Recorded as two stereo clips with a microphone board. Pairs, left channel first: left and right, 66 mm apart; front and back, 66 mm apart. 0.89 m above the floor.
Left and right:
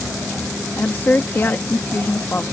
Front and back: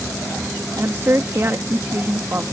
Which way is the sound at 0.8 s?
140° left.